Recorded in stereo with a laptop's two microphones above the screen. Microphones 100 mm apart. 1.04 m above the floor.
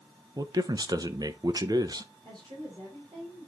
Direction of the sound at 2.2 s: 50° right (ahead or behind).